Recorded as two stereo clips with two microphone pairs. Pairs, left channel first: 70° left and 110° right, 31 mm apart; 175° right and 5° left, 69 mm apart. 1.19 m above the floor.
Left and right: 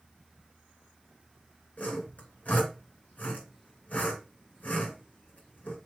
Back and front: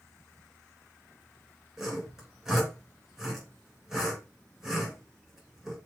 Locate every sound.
1.8 s sawing: 90° left, 3.5 m